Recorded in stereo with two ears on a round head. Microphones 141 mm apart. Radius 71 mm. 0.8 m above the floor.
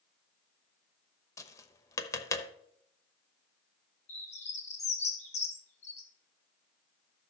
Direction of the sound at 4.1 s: 45° left (ahead or behind).